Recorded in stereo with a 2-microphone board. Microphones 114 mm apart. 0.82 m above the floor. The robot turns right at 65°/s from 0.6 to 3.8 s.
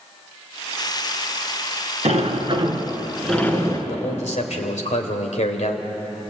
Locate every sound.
2.0 s a sliding door: 75° right, 3 m; by 3.8 s 40° left, 3 m
3.9 s a man speaking: 80° left, 3 m